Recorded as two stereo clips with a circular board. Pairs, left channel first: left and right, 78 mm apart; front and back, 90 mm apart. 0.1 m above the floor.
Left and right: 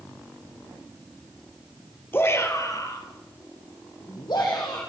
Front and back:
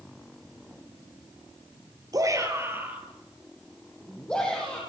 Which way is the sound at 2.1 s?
145° left.